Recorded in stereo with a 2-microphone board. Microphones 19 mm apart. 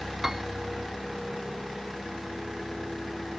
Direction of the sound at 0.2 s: 20° right (ahead or behind).